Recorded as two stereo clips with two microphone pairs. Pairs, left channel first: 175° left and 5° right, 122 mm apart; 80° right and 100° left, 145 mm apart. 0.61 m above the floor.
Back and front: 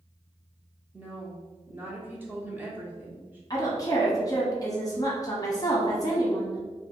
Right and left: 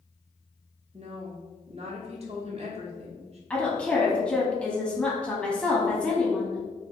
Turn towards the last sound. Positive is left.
turn(degrees=-160)